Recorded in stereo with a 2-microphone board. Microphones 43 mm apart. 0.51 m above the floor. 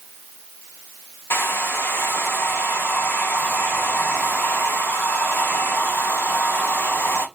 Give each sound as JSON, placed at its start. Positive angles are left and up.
{"t": 1.3, "sound": "a hair dryer", "side_deg": 70, "distance_m": 1.4}